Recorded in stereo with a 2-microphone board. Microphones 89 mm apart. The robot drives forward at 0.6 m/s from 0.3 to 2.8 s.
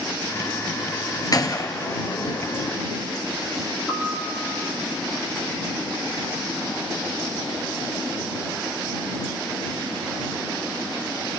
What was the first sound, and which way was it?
A gunshot, 45° left (ahead or behind).